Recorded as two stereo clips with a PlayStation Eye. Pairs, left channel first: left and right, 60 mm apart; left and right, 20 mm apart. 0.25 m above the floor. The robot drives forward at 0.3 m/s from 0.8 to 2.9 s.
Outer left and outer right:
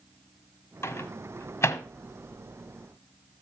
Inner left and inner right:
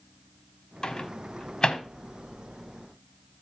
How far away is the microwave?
About 1.1 m.